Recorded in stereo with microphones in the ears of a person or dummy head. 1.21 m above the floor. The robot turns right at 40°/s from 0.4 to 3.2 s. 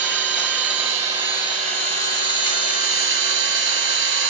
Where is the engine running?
170° left, 3.5 m; by 4.3 s 75° right, 3.5 m.